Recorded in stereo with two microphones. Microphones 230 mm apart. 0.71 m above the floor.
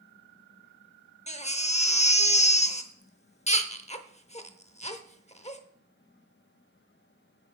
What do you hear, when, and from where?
1.3 s a baby crying: 30° left (ahead or behind), 0.7 m